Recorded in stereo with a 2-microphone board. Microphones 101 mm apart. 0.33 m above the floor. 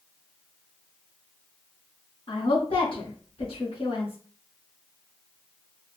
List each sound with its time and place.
2.3 s a woman speaking: 65° left (ahead or behind), 2.5 m